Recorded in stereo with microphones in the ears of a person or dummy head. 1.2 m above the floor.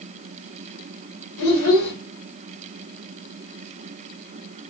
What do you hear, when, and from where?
1.4 s a child speaking: 70° left (ahead or behind), 1.4 m